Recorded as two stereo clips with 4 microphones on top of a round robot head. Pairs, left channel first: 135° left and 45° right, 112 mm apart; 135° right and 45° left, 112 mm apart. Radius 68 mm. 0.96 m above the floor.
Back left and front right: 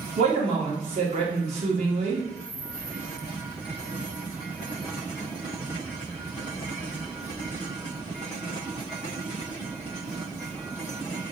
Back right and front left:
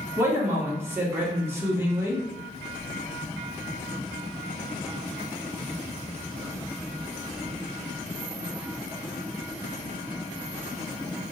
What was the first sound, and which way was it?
A man speaking, 25° right.